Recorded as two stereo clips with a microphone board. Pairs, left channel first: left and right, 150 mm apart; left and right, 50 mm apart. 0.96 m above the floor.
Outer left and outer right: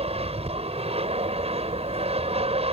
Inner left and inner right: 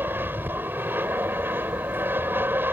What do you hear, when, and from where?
0.0 s an aircraft: 40° right (ahead or behind)